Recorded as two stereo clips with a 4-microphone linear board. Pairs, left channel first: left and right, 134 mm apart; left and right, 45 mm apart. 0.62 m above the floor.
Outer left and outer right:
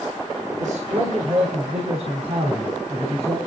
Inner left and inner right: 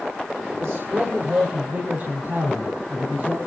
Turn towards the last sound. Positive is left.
turn(degrees=-45)  # may be behind; listen again after turning